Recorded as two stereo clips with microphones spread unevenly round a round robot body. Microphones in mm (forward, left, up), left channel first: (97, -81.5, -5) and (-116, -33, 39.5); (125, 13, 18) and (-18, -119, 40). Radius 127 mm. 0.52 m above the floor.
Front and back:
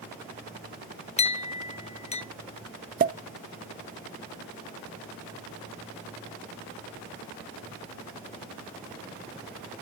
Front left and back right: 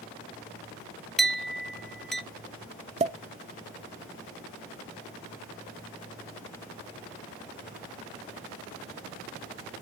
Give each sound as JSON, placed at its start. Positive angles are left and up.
{"t": 1.2, "sound": "a clink", "azimuth_deg": -40, "distance_m": 0.8}
{"t": 3.0, "sound": "a pop", "azimuth_deg": -170, "distance_m": 0.6}